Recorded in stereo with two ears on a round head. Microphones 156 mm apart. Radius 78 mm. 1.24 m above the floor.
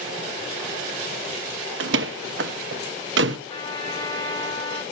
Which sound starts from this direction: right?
A door slam, at 1.8 s.